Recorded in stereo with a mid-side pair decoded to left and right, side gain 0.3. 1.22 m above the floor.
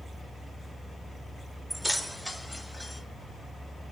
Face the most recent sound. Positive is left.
turn(degrees=25)